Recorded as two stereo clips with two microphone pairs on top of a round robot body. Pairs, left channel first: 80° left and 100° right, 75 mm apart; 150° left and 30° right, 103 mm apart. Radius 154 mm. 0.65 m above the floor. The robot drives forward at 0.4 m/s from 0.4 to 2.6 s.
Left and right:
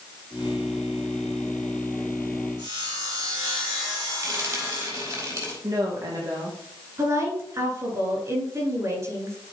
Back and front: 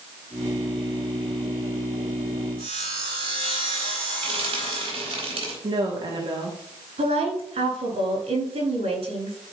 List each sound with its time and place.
2.6 s sawing: 65° right, 5 m
4.2 s frying: 60° right, 4.5 m
5.6 s a woman speaking: 65° right, 1.8 m
7.0 s a woman speaking: 50° right, 4.5 m